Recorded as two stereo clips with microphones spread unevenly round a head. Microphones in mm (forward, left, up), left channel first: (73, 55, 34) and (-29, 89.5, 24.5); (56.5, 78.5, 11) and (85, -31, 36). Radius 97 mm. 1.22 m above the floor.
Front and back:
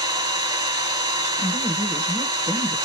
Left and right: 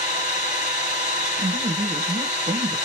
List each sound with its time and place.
0.0 s an engine running: 115° left, 1.8 m
1.4 s a woman speaking: 125° right, 0.7 m